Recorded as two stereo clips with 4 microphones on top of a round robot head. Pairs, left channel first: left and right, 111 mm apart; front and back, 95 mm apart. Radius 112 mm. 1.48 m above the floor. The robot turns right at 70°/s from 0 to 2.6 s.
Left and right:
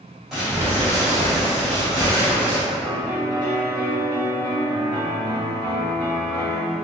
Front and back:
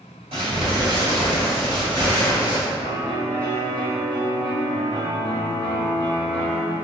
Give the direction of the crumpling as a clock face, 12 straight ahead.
6 o'clock.